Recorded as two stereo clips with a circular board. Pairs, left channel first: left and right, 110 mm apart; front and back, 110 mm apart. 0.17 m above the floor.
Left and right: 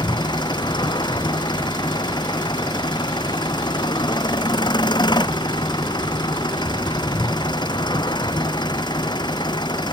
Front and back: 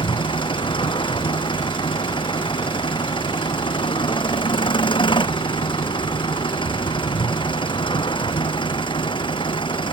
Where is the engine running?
40° left.